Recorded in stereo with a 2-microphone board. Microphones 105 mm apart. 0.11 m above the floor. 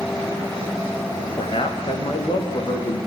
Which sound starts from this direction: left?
A man speaking, at 1.4 s.